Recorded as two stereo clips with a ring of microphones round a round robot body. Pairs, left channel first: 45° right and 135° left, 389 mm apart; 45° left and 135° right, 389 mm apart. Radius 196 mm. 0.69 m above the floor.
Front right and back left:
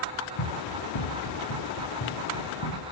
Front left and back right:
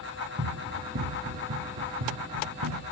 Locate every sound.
0.4 s running footsteps: 70° right, 3 m; by 2.8 s 90° right, 3.5 m